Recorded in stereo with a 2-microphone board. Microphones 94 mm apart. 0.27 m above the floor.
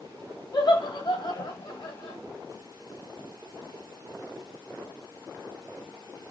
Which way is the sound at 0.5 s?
50° left (ahead or behind).